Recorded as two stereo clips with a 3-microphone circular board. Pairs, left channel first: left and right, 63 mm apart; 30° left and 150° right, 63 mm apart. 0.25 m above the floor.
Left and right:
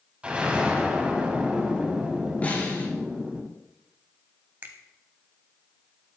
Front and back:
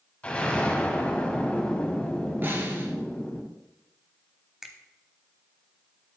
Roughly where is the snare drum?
Behind left.